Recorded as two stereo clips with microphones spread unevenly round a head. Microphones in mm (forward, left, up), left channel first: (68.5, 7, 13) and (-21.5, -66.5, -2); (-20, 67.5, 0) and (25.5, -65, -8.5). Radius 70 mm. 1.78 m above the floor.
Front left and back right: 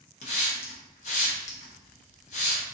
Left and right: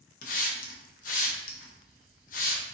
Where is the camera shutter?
I don't hear a camera shutter.